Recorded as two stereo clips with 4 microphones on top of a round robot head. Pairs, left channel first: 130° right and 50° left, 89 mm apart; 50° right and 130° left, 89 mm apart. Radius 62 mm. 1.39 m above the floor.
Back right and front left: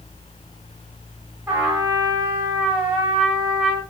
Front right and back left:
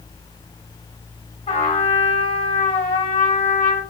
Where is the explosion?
No explosion in this recording.